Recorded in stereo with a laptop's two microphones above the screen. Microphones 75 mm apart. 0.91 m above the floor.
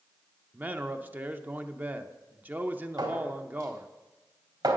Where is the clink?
75° right (ahead or behind), 2.5 m.